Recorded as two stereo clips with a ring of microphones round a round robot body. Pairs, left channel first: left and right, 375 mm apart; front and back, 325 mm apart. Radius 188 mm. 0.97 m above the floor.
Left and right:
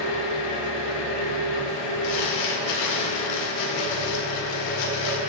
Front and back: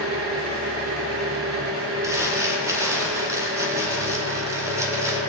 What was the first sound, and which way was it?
An engine running, 135° left.